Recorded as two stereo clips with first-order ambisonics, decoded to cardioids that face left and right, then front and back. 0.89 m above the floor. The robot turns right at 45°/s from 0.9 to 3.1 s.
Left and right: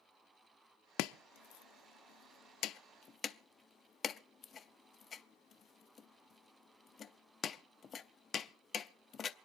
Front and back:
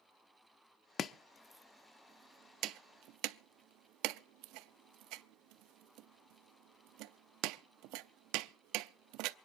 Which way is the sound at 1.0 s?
60° left.